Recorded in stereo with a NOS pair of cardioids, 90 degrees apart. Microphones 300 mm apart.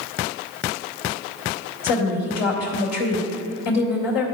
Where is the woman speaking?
65° left, 2.5 m.